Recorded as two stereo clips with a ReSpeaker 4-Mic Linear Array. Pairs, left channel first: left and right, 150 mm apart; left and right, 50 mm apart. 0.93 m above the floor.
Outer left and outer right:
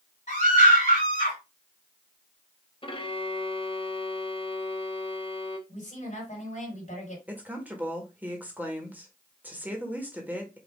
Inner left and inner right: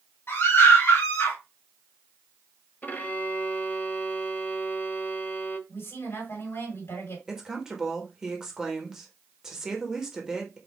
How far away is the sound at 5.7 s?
About 3 m.